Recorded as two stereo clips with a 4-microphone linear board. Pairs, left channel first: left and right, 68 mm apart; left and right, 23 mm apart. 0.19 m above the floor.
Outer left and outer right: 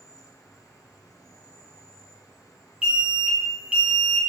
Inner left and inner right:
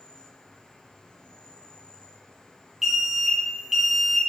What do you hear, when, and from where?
0.0 s an insect: 60° left (ahead or behind), 2.5 m
2.8 s an alarm: 15° right (ahead or behind), 1.6 m